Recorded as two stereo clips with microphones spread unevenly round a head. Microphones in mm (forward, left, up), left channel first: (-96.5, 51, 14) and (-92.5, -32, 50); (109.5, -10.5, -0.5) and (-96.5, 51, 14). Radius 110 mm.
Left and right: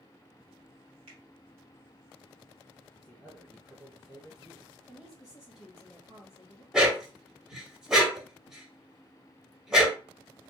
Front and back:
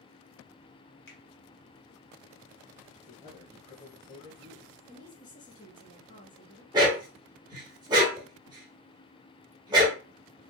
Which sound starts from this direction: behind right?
A dog barking, at 6.7 s.